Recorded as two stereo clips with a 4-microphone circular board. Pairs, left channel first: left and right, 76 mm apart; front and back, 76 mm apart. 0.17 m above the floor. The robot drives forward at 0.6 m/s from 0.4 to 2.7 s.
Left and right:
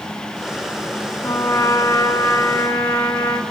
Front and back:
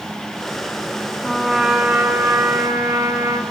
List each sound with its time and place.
1.2 s a trumpet: 90° left, 0.8 m; by 3.4 s 150° left, 1.2 m